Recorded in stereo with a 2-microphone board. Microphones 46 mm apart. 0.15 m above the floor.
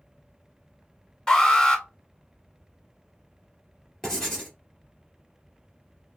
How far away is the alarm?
About 1.7 m.